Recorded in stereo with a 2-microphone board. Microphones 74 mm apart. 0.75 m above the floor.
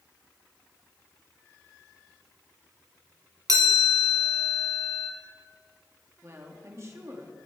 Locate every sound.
3.5 s a chime: 55° right (ahead or behind), 1.4 m
6.2 s a woman speaking: 40° right (ahead or behind), 1.5 m